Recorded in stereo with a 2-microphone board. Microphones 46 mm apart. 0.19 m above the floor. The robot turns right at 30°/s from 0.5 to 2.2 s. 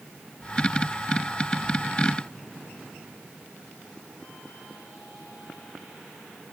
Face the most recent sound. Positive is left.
No sound to turn to.